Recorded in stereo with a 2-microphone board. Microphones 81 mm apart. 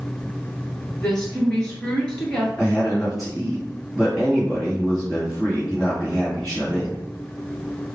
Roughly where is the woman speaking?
Centre.